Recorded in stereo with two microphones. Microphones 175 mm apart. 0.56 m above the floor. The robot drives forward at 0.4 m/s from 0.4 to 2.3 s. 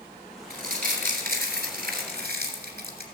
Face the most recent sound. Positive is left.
turn(degrees=-65)  # may be behind; listen again after turning